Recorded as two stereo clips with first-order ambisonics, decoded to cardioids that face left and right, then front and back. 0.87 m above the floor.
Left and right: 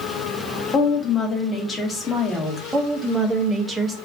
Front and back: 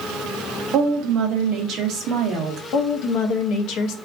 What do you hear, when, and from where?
0.7 s a woman speaking: 155° left, 0.8 m
2.7 s a woman speaking: 15° right, 0.5 m